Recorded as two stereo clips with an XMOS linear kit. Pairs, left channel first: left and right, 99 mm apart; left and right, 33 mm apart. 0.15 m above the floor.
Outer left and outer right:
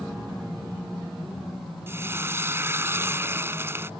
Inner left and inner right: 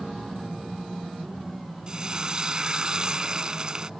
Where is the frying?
25° right (ahead or behind).